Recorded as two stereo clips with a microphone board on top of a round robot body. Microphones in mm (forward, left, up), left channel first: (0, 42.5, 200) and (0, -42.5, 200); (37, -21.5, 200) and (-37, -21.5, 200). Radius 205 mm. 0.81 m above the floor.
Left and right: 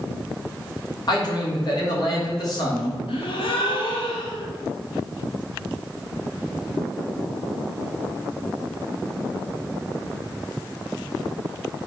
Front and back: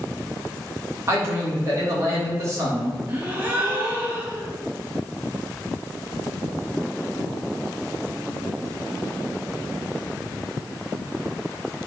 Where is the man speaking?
125° left, 3.5 m.